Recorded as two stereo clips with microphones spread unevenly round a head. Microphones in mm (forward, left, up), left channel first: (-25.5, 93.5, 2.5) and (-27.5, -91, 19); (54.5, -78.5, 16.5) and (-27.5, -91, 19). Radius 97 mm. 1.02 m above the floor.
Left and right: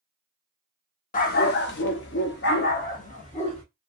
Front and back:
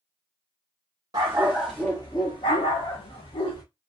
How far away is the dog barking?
About 0.6 m.